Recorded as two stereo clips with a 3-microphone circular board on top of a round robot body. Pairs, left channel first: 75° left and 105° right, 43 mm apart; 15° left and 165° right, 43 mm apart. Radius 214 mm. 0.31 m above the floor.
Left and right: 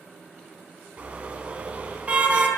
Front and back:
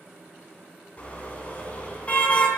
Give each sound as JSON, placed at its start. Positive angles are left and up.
{"t": 1.0, "sound": "a car horn", "azimuth_deg": -45, "distance_m": 2.5}